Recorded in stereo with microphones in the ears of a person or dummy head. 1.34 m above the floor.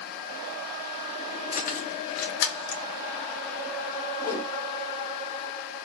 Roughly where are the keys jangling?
Left.